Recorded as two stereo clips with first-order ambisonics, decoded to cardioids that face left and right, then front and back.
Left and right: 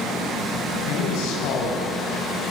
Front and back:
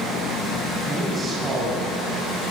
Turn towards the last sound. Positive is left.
turn(degrees=105)